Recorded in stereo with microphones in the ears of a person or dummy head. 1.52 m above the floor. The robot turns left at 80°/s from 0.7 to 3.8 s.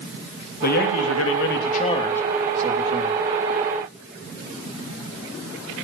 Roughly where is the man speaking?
Behind left.